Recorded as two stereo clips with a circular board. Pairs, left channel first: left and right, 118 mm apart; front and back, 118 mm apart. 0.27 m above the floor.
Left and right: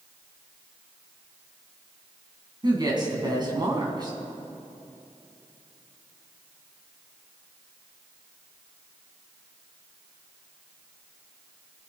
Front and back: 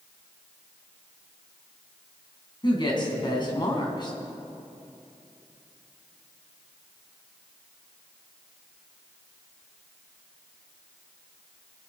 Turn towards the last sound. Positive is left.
turn(degrees=-45)